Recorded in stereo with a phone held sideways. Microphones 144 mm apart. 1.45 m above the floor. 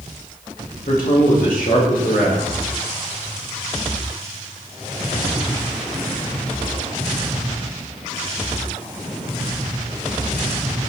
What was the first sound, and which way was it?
A man speaking, 80° left.